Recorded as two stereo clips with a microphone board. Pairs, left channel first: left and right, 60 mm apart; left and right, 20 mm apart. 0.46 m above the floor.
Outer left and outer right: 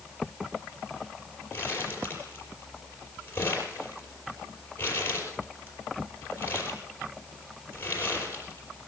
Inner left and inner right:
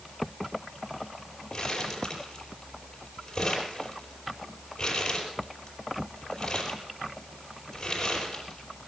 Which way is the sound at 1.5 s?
30° left (ahead or behind).